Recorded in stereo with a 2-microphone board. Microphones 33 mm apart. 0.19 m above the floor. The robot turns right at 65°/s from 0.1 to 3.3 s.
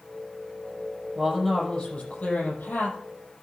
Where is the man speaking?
15° right, 6 m; by 3.0 s 100° left, 6 m.